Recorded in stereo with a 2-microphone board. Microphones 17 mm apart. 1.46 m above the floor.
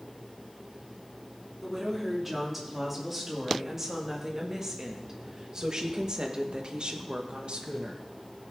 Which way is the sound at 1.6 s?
5° right (ahead or behind).